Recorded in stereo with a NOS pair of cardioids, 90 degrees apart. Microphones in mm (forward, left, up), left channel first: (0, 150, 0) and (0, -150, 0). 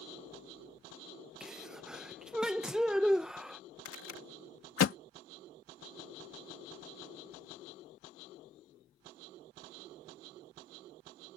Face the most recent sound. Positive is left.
turn(degrees=50)